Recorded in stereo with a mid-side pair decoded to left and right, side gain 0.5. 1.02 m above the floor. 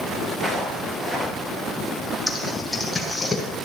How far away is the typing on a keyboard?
About 5 m.